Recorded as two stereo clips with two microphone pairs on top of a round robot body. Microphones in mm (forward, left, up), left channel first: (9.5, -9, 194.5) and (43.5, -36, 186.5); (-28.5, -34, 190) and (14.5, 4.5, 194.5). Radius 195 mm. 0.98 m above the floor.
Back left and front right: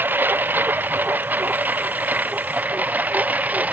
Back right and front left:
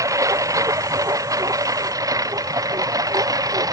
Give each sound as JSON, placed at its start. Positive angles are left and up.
{"t": 0.0, "sound": "a lawn mower", "azimuth_deg": 10}